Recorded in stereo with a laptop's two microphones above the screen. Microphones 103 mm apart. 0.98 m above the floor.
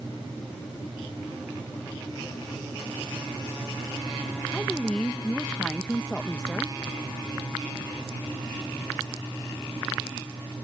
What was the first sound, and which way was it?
A woman speaking, 10° left (ahead or behind).